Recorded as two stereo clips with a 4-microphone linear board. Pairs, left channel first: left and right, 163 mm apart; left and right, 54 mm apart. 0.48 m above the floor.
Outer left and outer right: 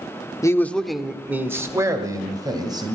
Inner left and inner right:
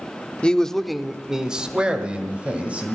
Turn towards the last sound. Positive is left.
turn(degrees=-25)  # may be behind; listen again after turning